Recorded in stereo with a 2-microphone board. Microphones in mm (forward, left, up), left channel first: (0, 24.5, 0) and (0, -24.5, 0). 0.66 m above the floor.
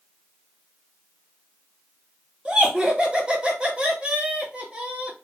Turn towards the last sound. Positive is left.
turn(degrees=-25)  # may be behind; listen again after turning